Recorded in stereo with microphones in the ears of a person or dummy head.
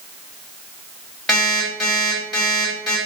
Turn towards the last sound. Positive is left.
turn(degrees=0)  # may be behind; listen again after turning